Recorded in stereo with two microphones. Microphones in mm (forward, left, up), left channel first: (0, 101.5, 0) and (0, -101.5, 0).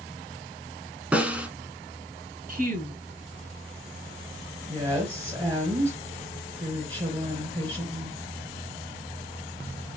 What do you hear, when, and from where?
1.1 s a snare drum: 5° right (ahead or behind), 1.0 m
2.5 s a woman speaking: 45° right (ahead or behind), 1.3 m
4.7 s a woman speaking: 25° right (ahead or behind), 2.5 m